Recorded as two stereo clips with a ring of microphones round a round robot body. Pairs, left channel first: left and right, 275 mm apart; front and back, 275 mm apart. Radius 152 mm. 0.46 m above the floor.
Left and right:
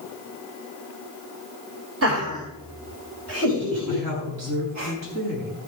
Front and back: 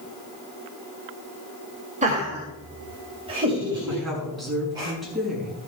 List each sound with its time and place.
2.0 s laughter: 120° right, 2.5 m; by 4.9 s 105° right, 4.5 m
3.9 s a woman speaking: 90° right, 6 m